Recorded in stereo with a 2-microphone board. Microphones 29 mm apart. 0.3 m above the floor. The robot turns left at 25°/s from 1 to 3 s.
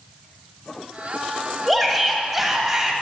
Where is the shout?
10° left, 1.3 m; by 2.9 s 20° right, 1.3 m.